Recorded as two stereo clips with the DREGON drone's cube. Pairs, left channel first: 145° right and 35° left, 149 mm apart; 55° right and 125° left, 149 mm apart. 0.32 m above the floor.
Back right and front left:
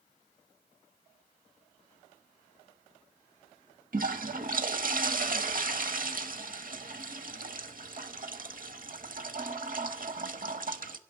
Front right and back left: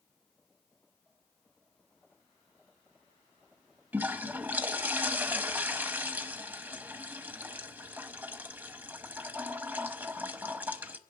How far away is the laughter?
No laughter in this recording.